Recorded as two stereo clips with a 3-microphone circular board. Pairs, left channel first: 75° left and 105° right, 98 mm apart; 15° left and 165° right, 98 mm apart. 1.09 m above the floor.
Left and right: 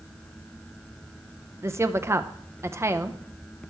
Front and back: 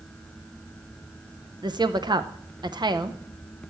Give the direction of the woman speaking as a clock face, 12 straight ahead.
5 o'clock.